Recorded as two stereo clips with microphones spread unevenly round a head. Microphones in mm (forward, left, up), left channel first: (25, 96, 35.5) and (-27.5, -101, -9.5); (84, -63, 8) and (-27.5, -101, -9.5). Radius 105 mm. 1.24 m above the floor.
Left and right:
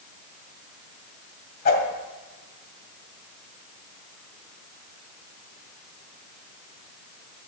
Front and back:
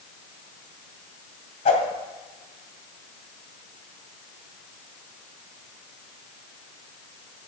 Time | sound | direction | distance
1.6 | a whoosh | 40° left | 2 m